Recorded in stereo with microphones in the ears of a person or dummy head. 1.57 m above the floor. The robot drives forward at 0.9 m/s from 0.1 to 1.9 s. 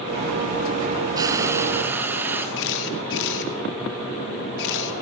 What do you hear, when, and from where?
1.2 s frying: 20° right (ahead or behind), 0.9 m; by 2.5 s 10° right (ahead or behind), 1.5 m
2.6 s a camera shutter: 65° left (ahead or behind), 1.8 m